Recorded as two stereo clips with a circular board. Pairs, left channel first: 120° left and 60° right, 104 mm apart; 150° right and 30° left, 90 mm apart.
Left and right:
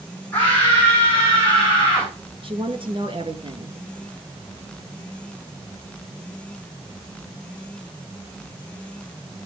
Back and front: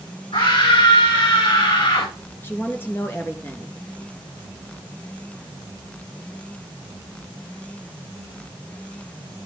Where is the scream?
165° right, 7.5 m; by 2.1 s 155° right, 8 m.